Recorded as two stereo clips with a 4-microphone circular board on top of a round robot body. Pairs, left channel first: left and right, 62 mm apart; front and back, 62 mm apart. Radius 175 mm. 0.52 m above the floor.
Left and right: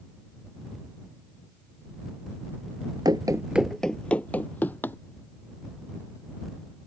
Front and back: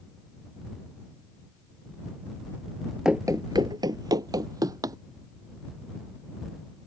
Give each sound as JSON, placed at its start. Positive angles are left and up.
{"t": 3.0, "sound": "running footsteps", "azimuth_deg": -95}